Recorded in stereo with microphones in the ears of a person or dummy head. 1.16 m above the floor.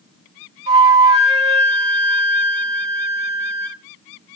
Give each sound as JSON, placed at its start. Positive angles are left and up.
{"t": 0.7, "sound": "a flute", "side_deg": -35, "distance_m": 2.5}